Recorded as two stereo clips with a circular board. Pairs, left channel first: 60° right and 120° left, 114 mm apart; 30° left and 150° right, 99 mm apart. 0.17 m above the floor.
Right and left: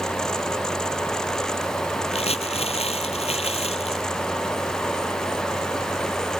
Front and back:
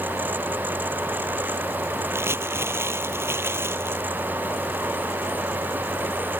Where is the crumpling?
85° right.